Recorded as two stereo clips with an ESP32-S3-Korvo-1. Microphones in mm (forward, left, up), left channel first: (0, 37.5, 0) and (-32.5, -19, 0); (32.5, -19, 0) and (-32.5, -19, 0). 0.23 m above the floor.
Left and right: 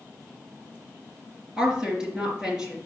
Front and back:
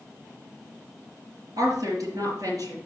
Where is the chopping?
No chopping in this recording.